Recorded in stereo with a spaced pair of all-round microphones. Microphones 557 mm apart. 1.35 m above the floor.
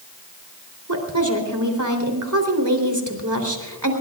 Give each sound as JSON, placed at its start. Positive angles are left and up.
{"t": 0.9, "sound": "a woman speaking", "side_deg": -35, "distance_m": 3.5}